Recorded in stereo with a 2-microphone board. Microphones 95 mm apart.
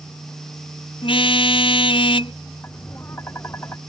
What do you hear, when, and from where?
1.0 s a car horn: 65° left (ahead or behind)
2.6 s tapping: 25° left (ahead or behind)